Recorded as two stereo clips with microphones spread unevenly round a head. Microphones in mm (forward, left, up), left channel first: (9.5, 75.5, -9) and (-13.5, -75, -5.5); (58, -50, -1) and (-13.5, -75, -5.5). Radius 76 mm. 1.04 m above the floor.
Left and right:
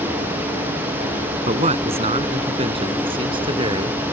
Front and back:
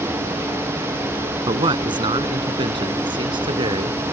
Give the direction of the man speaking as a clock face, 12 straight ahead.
5 o'clock.